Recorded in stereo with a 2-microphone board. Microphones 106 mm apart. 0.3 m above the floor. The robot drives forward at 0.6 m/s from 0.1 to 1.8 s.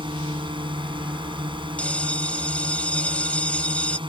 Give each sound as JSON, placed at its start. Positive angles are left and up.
{"t": 0.0, "sound": "a drone", "side_deg": -50}
{"t": 1.8, "sound": "a bell", "side_deg": 10}